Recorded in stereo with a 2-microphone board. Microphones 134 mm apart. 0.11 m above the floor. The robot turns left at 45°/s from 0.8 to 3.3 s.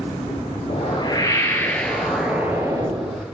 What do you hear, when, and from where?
0.7 s a whoosh: 60° left, 1.0 m; by 3.2 s 50° right, 1.0 m